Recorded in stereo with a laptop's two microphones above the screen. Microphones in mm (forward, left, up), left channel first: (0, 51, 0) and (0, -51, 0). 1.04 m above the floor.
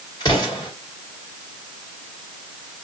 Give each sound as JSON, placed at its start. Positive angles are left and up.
{"t": 0.2, "sound": "an explosion", "side_deg": 40, "distance_m": 1.5}